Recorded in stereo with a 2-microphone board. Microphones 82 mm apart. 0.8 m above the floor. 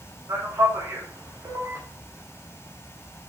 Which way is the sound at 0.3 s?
45° right (ahead or behind).